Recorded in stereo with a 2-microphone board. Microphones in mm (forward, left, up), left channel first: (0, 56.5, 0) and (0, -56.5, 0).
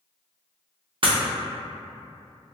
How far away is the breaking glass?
About 0.7 m.